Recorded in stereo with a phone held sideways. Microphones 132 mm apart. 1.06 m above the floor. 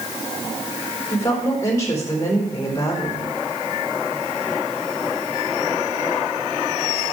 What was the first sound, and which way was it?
A woman speaking, 25° left (ahead or behind).